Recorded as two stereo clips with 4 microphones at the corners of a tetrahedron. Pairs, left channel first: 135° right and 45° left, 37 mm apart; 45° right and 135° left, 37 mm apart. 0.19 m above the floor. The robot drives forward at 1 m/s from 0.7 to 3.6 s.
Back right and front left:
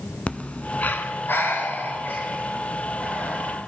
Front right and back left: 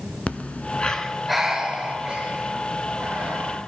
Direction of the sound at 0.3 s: 90° right.